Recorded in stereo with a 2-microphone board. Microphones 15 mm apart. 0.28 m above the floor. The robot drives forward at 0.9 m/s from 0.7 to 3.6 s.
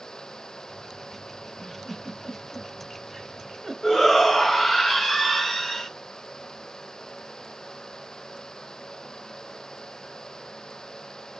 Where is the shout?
20° left (ahead or behind), 1.5 m.